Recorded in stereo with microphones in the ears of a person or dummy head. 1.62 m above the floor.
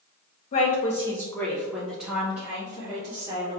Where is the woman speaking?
45° left (ahead or behind), 1.1 m; by 3.6 s 20° right (ahead or behind), 3 m.